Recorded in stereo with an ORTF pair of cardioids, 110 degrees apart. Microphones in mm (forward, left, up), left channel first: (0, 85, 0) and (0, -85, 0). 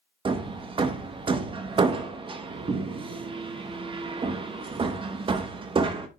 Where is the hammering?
30° right, 1.2 m.